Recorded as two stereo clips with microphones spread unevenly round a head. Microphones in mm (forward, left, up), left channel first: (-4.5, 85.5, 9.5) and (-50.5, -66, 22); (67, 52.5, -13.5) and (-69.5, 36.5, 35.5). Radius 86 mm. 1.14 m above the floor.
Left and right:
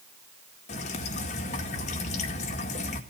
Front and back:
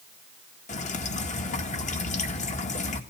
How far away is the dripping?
About 2.0 m.